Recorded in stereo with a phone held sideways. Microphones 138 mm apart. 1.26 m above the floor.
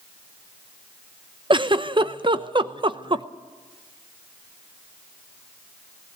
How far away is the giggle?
About 0.7 m.